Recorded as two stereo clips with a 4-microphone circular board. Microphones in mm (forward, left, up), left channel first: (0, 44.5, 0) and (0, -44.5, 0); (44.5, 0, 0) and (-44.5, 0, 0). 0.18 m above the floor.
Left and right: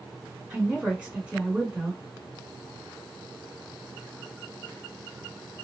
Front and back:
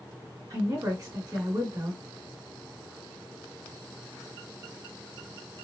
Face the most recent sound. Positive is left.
turn(degrees=-160)